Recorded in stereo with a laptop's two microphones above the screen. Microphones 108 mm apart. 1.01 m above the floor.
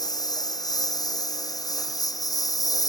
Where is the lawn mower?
35° left (ahead or behind).